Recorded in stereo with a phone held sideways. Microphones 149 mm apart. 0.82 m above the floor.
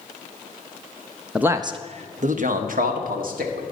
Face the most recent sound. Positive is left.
turn(degrees=-75)  # may be behind; listen again after turning